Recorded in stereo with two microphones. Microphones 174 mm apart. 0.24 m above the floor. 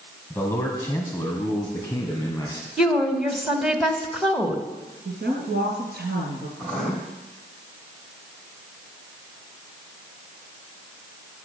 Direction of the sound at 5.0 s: 75° right (ahead or behind).